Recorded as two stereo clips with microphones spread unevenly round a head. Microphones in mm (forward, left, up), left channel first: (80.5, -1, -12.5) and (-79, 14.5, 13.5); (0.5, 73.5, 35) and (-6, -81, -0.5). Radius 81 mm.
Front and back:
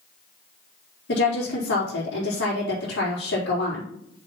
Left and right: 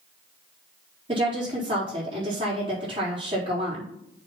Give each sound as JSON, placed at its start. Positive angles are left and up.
{"t": 1.1, "sound": "a woman speaking", "azimuth_deg": -30, "distance_m": 3.5}